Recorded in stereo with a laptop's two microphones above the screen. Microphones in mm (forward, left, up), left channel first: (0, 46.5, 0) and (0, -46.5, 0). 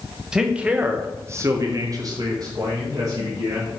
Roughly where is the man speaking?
Centre.